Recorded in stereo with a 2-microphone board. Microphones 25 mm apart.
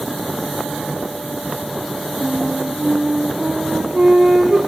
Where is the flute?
30° right (ahead or behind), 3.5 m.